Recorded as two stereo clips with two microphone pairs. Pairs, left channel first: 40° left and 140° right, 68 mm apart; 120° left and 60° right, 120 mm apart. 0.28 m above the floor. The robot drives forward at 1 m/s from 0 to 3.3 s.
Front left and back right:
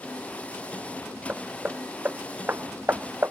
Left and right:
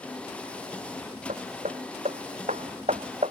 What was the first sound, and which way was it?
Hammering, 75° right.